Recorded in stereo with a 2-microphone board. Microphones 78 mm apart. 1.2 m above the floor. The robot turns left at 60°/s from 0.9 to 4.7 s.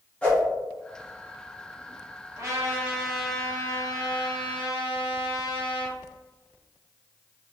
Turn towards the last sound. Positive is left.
turn(degrees=85)